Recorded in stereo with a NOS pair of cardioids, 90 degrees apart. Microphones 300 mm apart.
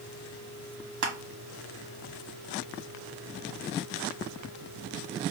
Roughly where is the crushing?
Ahead right.